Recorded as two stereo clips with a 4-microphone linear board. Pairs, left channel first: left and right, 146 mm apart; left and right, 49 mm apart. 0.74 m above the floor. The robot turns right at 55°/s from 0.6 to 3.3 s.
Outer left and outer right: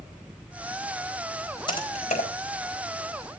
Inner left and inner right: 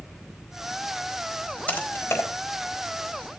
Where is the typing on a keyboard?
30° left (ahead or behind), 4 m; by 2.3 s 65° left (ahead or behind), 4 m.